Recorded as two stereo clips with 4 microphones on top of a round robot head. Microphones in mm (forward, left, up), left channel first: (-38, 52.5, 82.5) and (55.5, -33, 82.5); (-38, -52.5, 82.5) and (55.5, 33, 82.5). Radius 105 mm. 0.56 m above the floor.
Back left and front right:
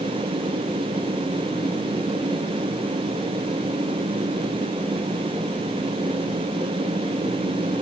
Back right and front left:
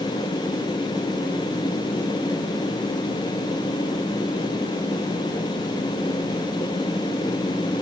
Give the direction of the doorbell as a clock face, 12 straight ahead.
I don't hear a doorbell.